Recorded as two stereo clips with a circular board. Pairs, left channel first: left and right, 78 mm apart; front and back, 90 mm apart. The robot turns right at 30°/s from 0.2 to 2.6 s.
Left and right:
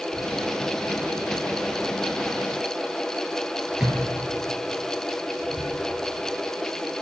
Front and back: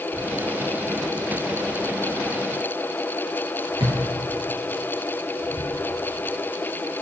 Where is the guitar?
No guitar in this recording.